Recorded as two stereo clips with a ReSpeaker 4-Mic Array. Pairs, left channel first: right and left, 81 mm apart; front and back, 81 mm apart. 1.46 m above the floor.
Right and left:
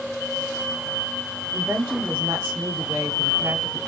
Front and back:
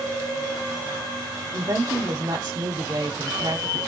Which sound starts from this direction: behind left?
A woman speaking, at 1.5 s.